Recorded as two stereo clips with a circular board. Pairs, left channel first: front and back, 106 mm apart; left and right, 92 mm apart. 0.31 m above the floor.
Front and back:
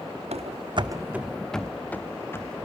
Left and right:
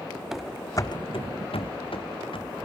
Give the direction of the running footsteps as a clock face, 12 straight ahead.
6 o'clock.